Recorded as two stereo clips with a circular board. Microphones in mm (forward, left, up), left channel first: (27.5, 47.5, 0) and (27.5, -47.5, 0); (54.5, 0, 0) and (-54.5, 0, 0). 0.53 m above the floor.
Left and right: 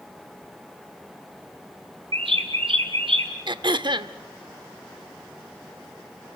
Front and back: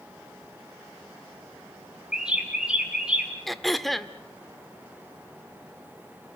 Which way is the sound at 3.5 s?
90° right.